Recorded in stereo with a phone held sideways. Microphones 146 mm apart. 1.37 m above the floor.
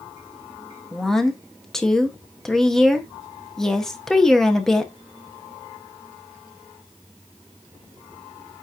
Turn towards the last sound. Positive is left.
turn(degrees=5)  # may be behind; listen again after turning